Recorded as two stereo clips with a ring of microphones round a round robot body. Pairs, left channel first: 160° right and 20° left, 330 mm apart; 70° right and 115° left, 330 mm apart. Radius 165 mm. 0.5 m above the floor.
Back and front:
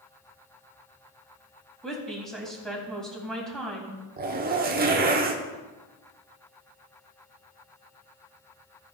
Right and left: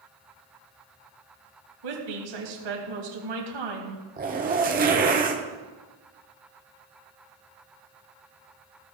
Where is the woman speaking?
115° left, 3 m.